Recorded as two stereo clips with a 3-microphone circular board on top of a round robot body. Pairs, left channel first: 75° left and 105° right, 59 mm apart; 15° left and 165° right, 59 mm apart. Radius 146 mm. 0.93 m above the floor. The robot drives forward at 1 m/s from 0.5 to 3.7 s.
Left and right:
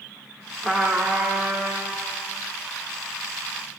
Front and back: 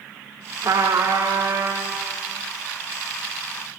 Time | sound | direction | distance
0.6 | a trumpet | 160° left | 1.0 m